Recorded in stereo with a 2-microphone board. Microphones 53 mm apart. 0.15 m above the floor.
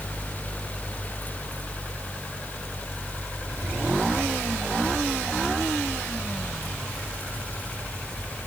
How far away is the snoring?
No snoring in this recording.